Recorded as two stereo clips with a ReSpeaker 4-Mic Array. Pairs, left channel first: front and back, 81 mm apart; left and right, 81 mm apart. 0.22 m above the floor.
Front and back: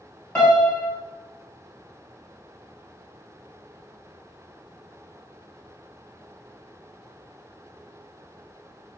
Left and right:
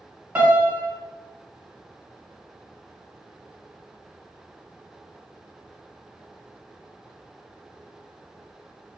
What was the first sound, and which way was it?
A piano, 55° right.